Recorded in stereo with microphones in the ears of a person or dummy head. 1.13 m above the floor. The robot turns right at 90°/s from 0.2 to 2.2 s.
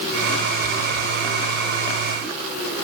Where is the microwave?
I don't hear a microwave.